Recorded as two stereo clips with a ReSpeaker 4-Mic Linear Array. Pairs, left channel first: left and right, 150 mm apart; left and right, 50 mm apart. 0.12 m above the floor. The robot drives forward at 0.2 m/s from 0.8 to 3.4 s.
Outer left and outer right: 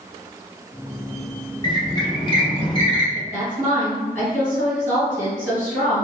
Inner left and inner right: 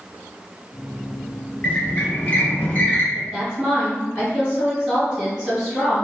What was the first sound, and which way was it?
A squeak, 30° left (ahead or behind).